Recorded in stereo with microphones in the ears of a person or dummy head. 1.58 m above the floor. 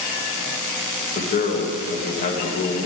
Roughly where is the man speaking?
Left.